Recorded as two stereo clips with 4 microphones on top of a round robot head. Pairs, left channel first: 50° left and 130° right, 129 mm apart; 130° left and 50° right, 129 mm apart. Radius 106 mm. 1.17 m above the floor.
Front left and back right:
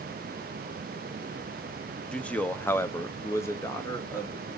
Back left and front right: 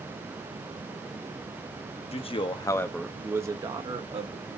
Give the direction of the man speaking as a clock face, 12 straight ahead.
8 o'clock.